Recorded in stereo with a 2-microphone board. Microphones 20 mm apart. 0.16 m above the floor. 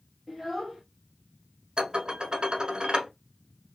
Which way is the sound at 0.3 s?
5° left (ahead or behind).